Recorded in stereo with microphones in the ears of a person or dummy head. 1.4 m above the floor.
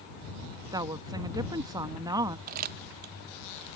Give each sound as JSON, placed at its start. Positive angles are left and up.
{"t": 0.7, "sound": "a woman speaking", "side_deg": -25}
{"t": 2.5, "sound": "crumpling", "side_deg": -45}